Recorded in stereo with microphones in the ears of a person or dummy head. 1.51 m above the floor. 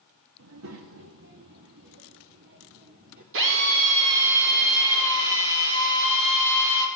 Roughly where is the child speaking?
Right.